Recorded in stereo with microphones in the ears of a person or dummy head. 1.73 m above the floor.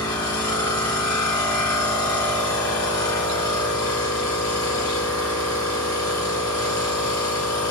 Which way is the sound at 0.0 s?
20° left (ahead or behind).